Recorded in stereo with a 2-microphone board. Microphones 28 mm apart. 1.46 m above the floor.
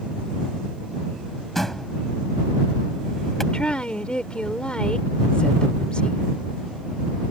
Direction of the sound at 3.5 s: 35° left (ahead or behind).